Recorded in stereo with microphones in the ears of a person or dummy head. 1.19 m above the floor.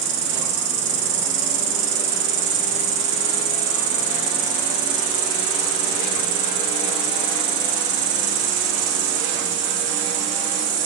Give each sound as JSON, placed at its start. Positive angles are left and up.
{"t": 0.0, "sound": "an insect", "side_deg": -55, "distance_m": 0.8}